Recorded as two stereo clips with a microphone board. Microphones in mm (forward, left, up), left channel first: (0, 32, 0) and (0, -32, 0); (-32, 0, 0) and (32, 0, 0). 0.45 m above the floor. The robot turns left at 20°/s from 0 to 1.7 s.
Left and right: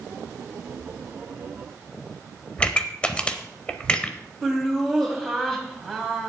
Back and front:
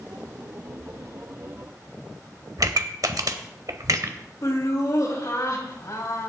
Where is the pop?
20° left, 0.8 m.